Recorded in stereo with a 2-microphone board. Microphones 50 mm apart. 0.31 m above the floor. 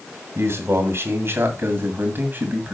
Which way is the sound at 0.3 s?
60° right (ahead or behind).